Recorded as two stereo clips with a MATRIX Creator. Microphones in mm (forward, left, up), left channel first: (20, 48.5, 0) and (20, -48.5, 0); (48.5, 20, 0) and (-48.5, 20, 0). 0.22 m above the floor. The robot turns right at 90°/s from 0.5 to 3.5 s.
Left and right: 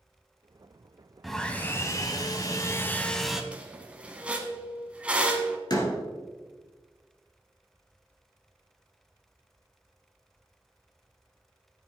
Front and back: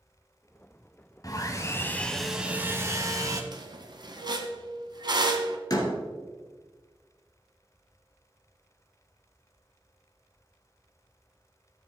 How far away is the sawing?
About 1.2 m.